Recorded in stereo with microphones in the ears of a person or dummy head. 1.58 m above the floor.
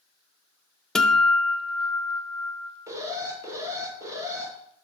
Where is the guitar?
5° left (ahead or behind), 0.6 m.